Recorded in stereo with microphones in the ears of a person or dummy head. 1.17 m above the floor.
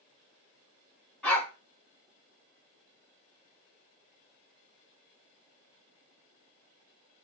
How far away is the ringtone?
No ringtone in this recording.